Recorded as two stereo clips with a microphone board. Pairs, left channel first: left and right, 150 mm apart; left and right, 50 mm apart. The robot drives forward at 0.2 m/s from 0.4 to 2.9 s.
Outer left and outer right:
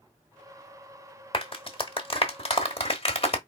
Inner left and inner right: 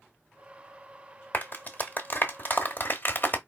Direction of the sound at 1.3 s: 35° left (ahead or behind).